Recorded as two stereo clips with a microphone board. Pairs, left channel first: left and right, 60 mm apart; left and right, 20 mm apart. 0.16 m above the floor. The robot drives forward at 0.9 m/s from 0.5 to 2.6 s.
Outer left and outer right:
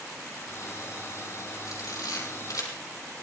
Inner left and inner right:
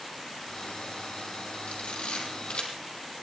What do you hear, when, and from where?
1.7 s a camera shutter: 75° left (ahead or behind), 6 m; by 2.7 s 70° left (ahead or behind), 6 m